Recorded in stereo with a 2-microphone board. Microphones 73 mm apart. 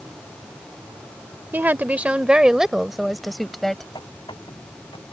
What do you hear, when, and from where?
1.5 s a woman speaking: 25° right (ahead or behind); by 3.9 s 5° left (ahead or behind)
4.0 s a squeak: 80° left